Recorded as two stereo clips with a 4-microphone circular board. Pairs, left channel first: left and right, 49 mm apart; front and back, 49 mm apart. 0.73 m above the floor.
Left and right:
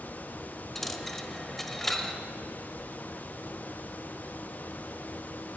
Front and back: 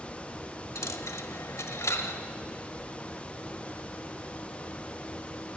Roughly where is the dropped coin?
Ahead.